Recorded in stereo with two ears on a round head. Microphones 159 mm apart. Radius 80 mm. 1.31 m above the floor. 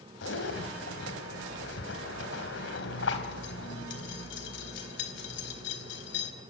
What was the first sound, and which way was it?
A zipper, 75° left (ahead or behind).